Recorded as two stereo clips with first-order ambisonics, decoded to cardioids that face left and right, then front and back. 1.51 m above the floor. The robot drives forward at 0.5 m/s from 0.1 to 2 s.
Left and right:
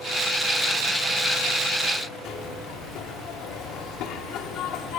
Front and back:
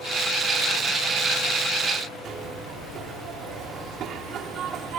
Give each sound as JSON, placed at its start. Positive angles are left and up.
{"t": 2.2, "sound": "a zipper", "azimuth_deg": 130, "distance_m": 2.5}